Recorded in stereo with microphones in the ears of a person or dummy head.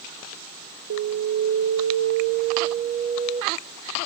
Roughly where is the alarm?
Right.